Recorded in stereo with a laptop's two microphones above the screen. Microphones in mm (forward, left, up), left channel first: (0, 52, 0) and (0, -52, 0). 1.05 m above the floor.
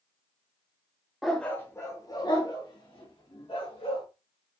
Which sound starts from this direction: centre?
A dog barking, at 1.2 s.